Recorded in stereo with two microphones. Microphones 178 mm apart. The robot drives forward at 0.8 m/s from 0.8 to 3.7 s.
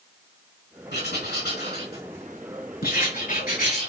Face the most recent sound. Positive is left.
turn(degrees=50)  # may be behind; listen again after turning